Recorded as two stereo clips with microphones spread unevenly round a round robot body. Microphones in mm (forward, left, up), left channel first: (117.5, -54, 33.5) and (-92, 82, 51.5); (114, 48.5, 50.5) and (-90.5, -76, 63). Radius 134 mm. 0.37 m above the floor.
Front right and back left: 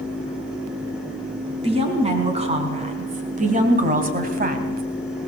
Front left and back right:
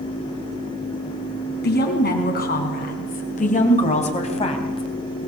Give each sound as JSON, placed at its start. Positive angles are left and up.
{"t": 1.6, "sound": "a woman speaking", "azimuth_deg": 80, "distance_m": 5.0}